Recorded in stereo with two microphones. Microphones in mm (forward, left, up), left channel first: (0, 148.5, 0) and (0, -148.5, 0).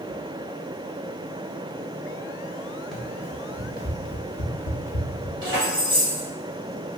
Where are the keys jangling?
45° right (ahead or behind), 1.7 m.